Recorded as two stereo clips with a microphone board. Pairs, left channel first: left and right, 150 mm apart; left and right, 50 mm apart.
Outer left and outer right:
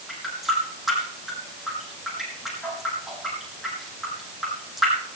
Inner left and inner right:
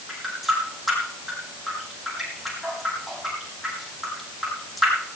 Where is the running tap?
Centre (ahead or behind), 5 m.